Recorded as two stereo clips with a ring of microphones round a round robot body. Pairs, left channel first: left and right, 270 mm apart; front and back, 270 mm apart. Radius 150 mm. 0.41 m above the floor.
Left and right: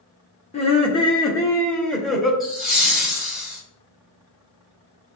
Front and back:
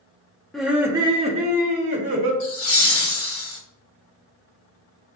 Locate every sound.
0.5 s laughter: 90° left, 0.9 m; by 2.3 s straight behind, 1.3 m
2.4 s laughter: straight ahead, 1.1 m